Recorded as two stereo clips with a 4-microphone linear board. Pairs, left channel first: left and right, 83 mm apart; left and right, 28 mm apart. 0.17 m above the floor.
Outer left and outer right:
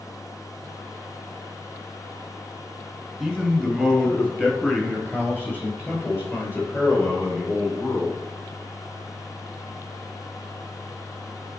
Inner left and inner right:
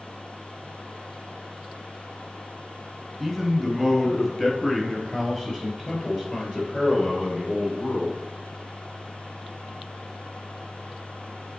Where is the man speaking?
5° left (ahead or behind), 3 m; by 8.2 s 35° left (ahead or behind), 5.5 m.